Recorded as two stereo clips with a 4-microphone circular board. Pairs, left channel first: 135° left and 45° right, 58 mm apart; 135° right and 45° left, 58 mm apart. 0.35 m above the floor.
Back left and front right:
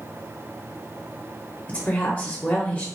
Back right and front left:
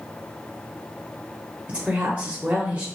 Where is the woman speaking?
90° left, 0.9 m.